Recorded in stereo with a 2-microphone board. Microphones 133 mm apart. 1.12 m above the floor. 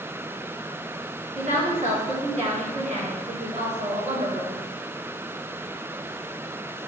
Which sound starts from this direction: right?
A woman speaking, at 1.4 s.